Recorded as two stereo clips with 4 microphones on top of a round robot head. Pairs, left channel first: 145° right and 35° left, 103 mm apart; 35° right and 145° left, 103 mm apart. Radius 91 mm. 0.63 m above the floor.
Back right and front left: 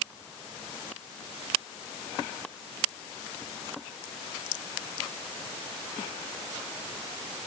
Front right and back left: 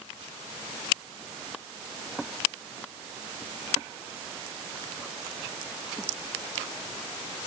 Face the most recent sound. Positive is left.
No sound to turn to.